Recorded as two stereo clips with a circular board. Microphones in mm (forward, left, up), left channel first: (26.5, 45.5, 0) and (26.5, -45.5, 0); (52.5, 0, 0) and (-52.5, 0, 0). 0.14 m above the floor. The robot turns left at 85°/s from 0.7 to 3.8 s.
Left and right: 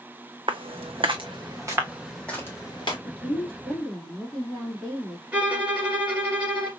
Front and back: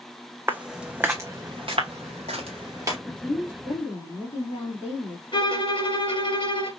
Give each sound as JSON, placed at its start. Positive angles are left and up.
{"t": 0.5, "sound": "footsteps", "azimuth_deg": -110, "distance_m": 0.5}
{"t": 3.0, "sound": "a woman speaking", "azimuth_deg": 95, "distance_m": 3.0}
{"t": 5.3, "sound": "a violin", "azimuth_deg": -15, "distance_m": 1.6}